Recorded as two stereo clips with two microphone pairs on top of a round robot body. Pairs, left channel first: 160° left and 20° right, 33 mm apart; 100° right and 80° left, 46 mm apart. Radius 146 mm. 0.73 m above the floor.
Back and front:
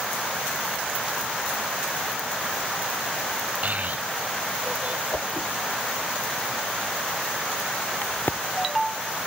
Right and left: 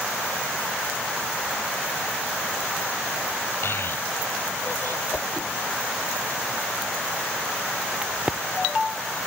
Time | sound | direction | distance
3.6 | a child speaking | 65° right | ?
5.1 | a whoosh | 170° right | ?
8.0 | a crack | 145° left | ?